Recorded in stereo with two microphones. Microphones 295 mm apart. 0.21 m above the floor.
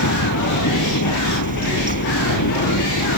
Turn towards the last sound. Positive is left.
turn(degrees=70)  # may be behind; listen again after turning